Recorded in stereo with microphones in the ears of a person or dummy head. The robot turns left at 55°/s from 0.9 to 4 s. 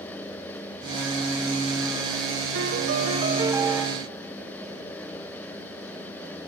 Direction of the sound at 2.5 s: 105° right.